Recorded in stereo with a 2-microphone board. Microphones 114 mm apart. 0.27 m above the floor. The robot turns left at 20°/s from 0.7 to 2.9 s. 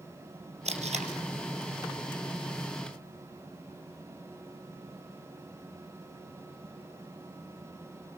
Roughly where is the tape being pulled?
Right.